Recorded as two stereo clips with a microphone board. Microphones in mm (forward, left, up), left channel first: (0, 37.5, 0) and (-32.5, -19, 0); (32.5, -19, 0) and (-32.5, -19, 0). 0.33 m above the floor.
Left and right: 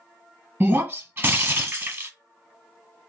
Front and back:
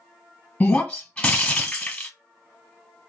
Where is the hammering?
No hammering in this recording.